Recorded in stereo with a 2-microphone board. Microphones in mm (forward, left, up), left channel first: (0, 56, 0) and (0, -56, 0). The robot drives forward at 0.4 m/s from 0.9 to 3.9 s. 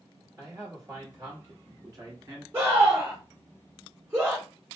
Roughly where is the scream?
Right.